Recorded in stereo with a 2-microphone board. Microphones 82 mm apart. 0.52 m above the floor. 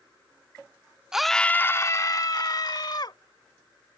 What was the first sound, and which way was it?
A scream, 5° right (ahead or behind).